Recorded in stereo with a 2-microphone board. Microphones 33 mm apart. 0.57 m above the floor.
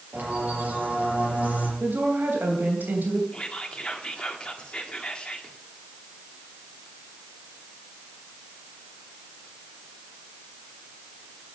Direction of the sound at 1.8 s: 75° right (ahead or behind).